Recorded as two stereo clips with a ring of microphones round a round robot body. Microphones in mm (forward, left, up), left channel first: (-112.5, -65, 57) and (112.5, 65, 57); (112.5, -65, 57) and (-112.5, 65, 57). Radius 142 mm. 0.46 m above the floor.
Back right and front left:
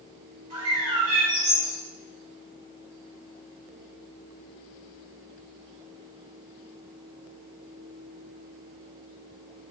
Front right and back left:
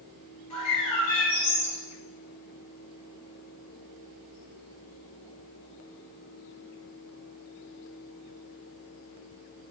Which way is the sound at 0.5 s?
5° right.